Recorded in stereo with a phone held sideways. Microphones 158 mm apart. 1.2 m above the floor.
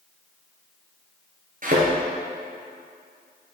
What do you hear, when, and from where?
1.6 s a thud: 60° right (ahead or behind), 2.5 m